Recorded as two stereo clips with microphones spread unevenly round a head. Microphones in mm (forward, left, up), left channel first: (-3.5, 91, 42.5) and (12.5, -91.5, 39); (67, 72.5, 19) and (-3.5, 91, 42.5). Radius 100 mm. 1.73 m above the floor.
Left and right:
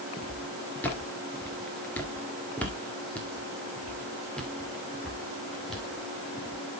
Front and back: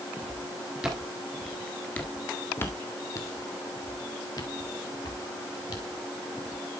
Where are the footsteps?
170° left, 2 m; by 6.6 s 5° left, 3.5 m.